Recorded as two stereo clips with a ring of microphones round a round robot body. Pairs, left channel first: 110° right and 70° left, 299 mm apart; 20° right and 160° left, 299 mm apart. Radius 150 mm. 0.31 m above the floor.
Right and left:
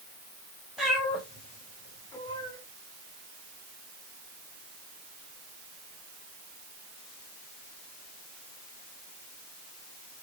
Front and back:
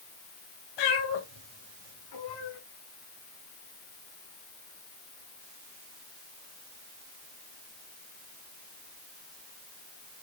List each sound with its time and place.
0.8 s a cat meowing: 20° right, 5.5 m; by 2.6 s 35° right, 7 m